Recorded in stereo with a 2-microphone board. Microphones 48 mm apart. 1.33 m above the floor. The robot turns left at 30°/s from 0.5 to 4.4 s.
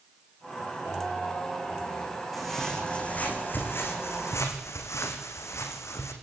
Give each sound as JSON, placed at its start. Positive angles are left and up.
{"t": 2.3, "sound": "footsteps", "side_deg": 0, "distance_m": 6.0}